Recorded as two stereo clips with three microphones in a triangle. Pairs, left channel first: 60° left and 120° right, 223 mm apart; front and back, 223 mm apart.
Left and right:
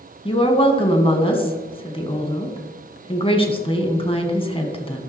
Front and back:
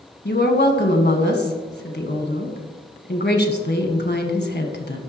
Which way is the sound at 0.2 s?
Straight ahead.